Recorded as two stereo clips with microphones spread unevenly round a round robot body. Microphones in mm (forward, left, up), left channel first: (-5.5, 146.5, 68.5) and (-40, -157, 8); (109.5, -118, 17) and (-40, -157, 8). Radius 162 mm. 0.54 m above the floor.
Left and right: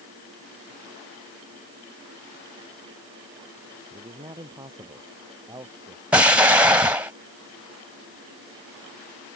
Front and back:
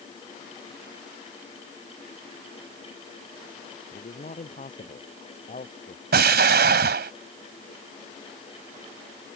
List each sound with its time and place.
3.9 s a man speaking: 20° right
6.1 s an explosion: straight behind